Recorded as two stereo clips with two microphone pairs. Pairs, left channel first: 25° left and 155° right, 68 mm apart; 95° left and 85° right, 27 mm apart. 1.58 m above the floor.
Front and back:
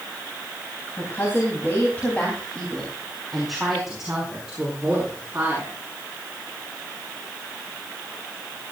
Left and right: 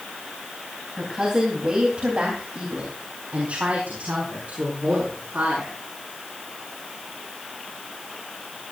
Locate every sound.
1.0 s a woman speaking: 25° right, 3.5 m; by 5.7 s 90° right, 6 m